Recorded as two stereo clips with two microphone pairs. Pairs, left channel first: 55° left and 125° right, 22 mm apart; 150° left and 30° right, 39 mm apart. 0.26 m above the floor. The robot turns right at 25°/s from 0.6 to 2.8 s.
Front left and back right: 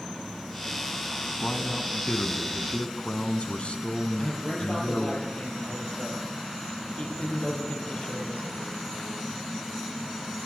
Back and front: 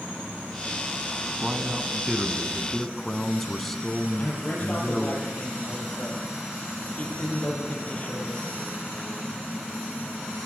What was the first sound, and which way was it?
A man speaking, 35° left.